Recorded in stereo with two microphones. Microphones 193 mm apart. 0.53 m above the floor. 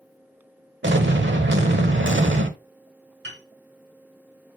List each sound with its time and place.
0.8 s an explosion: 80° right, 1.0 m
3.2 s a piano: 80° right, 3.5 m